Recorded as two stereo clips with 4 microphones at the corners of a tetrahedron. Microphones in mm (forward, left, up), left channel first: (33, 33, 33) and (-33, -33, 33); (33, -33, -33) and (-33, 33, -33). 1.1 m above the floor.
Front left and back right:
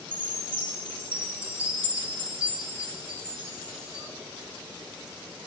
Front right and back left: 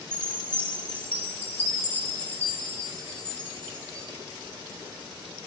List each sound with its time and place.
0.1 s a chime: 160° right, 4 m